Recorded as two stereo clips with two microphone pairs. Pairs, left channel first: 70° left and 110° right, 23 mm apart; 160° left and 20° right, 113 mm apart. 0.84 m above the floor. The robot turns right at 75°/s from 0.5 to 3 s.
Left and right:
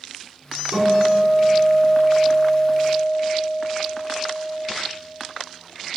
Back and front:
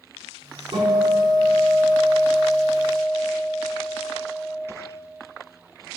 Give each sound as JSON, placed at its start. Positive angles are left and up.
{"t": 0.7, "sound": "a guitar", "azimuth_deg": -50, "distance_m": 5.0}